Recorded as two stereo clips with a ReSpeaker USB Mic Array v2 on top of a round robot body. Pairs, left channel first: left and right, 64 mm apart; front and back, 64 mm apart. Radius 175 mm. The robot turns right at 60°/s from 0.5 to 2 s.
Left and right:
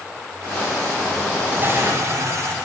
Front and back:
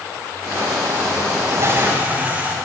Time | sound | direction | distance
1.5 | a toilet flushing | 150° right | 1.8 m